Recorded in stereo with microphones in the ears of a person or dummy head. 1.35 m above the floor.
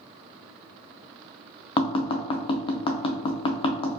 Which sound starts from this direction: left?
Tapping, at 1.8 s.